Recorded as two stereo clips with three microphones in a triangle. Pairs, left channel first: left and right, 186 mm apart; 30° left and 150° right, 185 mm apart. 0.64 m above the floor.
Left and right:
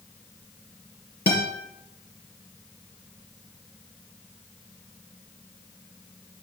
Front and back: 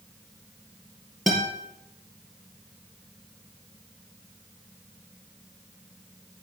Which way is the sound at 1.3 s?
120° left.